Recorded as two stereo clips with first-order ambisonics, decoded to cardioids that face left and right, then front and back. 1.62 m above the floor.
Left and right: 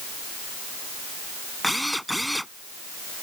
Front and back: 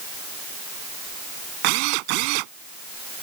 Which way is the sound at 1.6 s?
Straight behind.